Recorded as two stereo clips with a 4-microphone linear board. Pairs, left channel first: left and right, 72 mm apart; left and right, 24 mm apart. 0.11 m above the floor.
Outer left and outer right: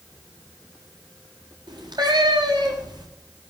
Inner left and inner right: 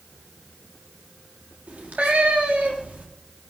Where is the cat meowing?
75° right (ahead or behind), 4.5 m.